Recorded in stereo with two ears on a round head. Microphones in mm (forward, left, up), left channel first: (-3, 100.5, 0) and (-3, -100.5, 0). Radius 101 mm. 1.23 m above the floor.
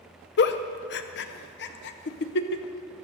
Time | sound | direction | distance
0.4 | a giggle | 50° left (ahead or behind) | 0.6 m